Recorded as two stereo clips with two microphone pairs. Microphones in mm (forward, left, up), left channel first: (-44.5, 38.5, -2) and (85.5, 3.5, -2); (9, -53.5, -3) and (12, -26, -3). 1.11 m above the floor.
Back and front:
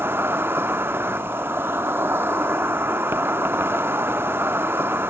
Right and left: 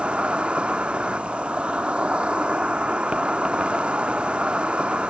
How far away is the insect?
About 0.8 m.